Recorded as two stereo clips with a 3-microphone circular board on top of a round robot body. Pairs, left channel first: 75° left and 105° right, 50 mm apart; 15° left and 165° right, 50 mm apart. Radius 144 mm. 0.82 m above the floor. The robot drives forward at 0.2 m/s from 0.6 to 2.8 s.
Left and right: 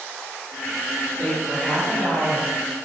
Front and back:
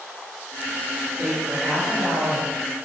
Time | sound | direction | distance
1.2 | a woman speaking | 155° left | 1.8 m